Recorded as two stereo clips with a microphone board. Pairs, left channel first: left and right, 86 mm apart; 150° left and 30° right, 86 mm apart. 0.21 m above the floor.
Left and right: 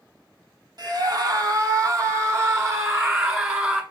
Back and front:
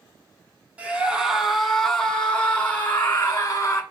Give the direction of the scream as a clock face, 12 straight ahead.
3 o'clock.